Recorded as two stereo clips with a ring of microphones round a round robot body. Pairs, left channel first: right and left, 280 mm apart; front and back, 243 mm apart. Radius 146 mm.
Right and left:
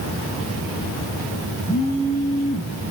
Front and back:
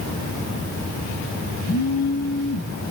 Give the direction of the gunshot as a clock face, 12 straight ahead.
No gunshot in this recording.